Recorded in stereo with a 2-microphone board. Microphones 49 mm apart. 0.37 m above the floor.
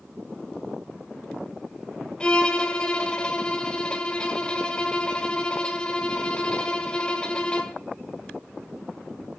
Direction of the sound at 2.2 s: 20° left (ahead or behind).